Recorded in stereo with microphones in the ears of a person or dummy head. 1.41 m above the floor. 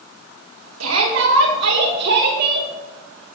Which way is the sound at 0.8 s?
80° right.